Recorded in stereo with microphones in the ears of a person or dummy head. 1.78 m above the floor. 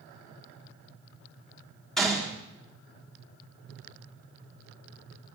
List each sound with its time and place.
2.0 s a gunshot: centre (ahead or behind), 1.6 m